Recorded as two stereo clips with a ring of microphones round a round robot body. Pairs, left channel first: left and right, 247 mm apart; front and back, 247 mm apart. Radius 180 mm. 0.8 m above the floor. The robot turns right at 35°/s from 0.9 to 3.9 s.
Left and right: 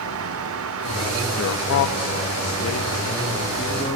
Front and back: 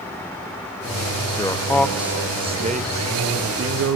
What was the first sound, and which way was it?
A man speaking, 70° left.